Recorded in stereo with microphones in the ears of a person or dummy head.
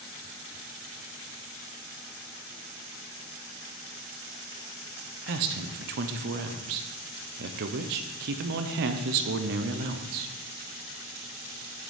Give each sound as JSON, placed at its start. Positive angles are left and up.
{"t": 5.3, "sound": "a man speaking", "side_deg": -55, "distance_m": 0.7}